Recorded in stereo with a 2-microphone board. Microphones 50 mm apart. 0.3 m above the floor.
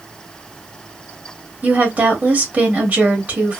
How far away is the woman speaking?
About 1.3 m.